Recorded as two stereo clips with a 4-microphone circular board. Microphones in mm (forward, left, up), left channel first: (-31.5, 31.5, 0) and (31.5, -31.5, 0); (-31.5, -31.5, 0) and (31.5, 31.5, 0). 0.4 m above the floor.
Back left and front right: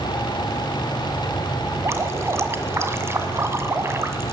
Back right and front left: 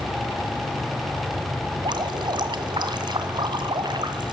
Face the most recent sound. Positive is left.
turn(degrees=15)